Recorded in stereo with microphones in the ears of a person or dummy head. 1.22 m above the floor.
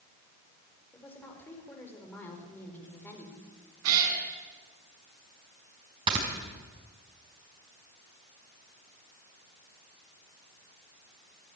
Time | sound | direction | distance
0.9 | a woman speaking | 10° left (ahead or behind) | 4.5 m
3.8 | a cat meowing | 75° right (ahead or behind) | 4 m
6.1 | snoring | 30° right (ahead or behind) | 4.5 m